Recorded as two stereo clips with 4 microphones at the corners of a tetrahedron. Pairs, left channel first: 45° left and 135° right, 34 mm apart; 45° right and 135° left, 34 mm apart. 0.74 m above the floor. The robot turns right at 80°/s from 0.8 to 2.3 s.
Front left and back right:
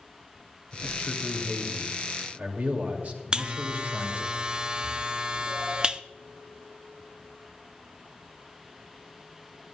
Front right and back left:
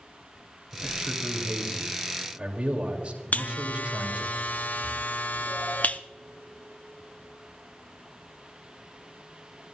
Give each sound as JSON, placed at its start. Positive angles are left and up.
{"t": 0.7, "sound": "a man speaking", "azimuth_deg": 65, "distance_m": 2.5}
{"t": 3.3, "sound": "a buzzer", "azimuth_deg": -75, "distance_m": 0.6}